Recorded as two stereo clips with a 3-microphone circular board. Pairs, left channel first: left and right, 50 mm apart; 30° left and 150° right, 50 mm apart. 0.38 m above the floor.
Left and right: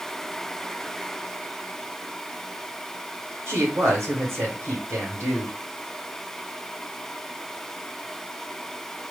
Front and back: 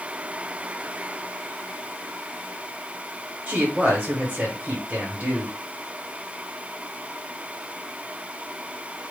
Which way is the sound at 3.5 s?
100° right.